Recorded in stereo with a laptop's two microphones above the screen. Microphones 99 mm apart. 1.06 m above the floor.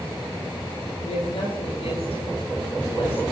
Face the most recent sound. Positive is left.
turn(degrees=80)